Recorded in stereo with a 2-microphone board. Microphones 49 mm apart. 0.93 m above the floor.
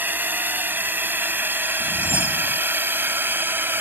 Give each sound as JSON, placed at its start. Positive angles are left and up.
{"t": 0.0, "sound": "a drone", "side_deg": -40}
{"t": 1.8, "sound": "a whoosh", "side_deg": 55}